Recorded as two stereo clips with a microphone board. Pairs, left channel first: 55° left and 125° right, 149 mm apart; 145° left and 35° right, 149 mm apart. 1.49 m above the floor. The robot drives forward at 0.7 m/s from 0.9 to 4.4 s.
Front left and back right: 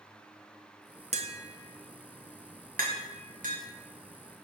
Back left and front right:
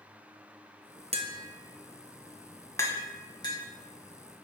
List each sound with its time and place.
1.1 s tapping: 80° right, 0.8 m; by 3.6 s 155° right, 1.8 m